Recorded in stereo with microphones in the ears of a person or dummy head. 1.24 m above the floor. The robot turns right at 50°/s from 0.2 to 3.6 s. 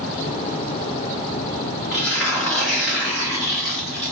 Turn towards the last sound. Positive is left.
turn(degrees=165)